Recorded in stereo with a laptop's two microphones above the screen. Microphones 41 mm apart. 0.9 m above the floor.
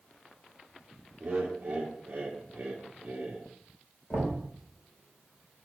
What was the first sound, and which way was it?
Laughter, 25° right (ahead or behind).